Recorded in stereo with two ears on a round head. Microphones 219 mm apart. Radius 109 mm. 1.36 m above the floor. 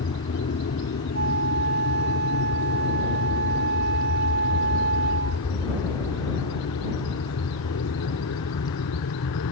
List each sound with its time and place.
0.0 s an aircraft: 50° left (ahead or behind); by 9.5 s 65° left (ahead or behind)
1.1 s a flute: 45° right (ahead or behind)